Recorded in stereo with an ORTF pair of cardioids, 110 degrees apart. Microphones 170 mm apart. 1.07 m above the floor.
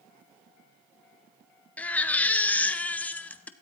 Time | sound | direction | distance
1.8 | a baby crying | 10° left | 0.7 m